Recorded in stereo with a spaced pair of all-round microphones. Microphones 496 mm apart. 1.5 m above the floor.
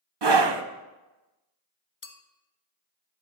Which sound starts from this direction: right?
A scream, at 0.2 s.